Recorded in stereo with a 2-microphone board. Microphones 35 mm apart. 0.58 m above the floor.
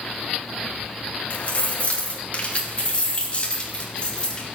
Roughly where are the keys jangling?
Left.